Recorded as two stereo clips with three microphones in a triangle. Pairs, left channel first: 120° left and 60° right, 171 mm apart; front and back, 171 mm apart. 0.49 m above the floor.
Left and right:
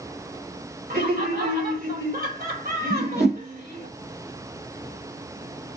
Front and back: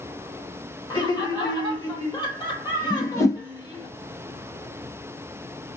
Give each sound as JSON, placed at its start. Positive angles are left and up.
{"t": 0.9, "sound": "laughter", "azimuth_deg": -60, "distance_m": 1.8}
{"t": 2.9, "sound": "a whoosh", "azimuth_deg": -70, "distance_m": 1.8}